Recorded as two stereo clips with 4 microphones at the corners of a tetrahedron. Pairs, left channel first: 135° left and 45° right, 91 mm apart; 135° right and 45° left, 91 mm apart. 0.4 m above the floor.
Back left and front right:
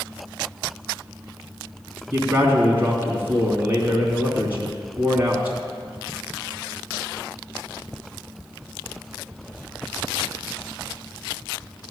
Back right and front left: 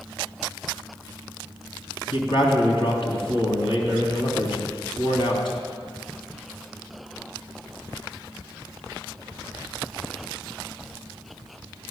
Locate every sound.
2.1 s a man speaking: 115° right, 3 m